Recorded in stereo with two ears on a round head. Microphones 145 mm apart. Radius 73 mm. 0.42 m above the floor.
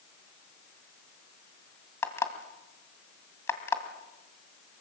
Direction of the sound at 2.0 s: 15° left (ahead or behind).